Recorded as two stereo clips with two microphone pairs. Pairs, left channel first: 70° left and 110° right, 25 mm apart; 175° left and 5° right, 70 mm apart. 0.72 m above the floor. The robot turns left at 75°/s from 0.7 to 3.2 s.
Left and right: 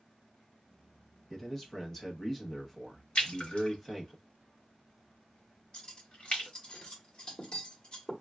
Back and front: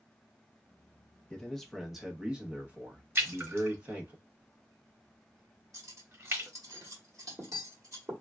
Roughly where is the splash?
Ahead left.